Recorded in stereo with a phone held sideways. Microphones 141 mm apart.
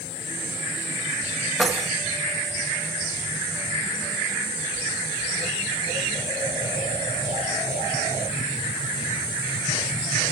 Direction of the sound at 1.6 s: 5° left (ahead or behind).